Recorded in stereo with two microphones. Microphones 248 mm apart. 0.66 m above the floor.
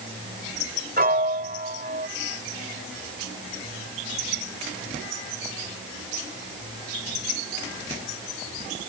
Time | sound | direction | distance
1.0 | a piano | 35° right (ahead or behind) | ?